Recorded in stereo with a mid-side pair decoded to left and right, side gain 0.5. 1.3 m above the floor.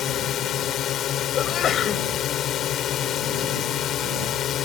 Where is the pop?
No pop in this recording.